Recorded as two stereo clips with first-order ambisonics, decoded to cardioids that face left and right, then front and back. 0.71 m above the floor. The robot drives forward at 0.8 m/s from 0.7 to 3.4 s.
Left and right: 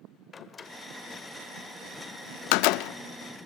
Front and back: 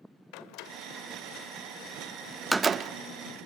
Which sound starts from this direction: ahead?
A door slam, at 0.3 s.